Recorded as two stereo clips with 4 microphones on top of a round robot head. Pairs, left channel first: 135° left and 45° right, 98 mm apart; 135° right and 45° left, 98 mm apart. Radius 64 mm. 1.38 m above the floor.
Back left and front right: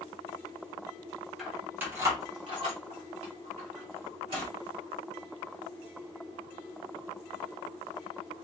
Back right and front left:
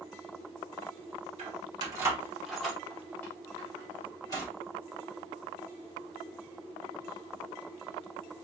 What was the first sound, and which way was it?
Keys jangling, 45° left.